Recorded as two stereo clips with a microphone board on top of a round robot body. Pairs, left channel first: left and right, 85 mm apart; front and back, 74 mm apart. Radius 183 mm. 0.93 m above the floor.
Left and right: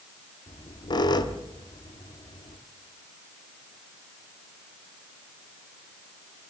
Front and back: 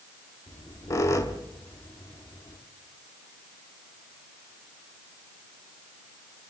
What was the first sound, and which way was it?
A squeak, 50° left.